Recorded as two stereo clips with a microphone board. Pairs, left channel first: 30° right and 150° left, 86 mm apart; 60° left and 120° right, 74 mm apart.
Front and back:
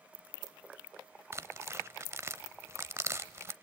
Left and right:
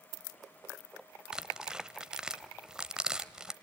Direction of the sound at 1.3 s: 170° left.